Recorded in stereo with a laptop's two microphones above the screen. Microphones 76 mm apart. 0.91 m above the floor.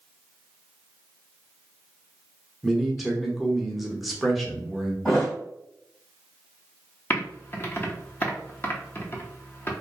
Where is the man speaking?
Centre (ahead or behind), 0.9 m.